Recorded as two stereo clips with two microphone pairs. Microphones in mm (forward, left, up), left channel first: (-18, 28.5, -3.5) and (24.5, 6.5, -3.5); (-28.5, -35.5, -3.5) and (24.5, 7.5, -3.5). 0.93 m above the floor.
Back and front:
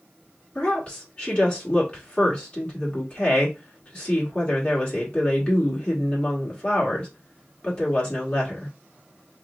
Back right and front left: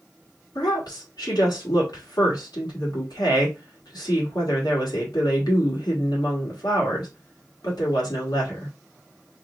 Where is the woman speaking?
145° right, 1.3 m.